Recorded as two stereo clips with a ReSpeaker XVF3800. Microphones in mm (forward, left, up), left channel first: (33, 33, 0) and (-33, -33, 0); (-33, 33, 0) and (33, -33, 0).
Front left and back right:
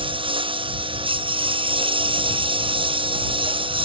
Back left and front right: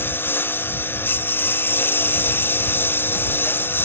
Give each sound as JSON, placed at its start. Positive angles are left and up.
{"t": 0.0, "sound": "a lawn mower", "azimuth_deg": -160}